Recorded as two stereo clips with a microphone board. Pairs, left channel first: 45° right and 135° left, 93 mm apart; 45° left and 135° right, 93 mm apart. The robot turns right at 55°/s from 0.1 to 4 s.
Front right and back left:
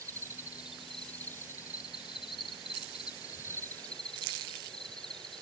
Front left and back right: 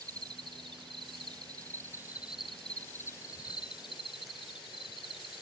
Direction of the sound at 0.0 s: 175° right.